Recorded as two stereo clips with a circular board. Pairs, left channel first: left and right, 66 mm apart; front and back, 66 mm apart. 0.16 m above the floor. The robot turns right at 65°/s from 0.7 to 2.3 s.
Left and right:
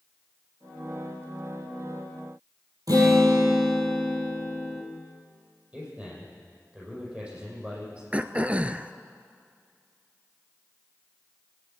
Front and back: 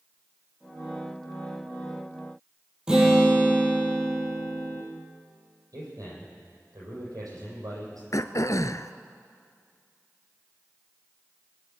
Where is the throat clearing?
20° right, 0.6 m.